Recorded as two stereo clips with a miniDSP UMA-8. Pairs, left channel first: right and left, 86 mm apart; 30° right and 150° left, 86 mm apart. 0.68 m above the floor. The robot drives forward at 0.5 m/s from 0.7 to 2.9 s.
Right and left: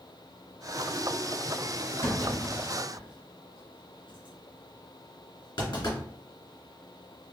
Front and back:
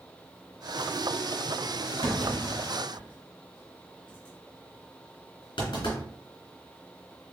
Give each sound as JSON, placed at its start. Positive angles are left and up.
{"t": 2.0, "sound": "a clunk", "azimuth_deg": -50, "distance_m": 2.5}